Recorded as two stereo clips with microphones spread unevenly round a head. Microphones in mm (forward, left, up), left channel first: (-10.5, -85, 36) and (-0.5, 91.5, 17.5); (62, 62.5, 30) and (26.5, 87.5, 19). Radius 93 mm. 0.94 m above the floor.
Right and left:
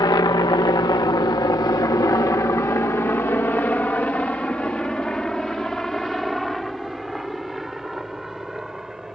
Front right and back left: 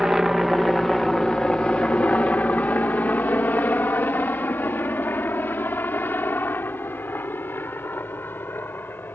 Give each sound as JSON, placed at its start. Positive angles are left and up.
{"t": 0.0, "sound": "a helicopter", "azimuth_deg": -150}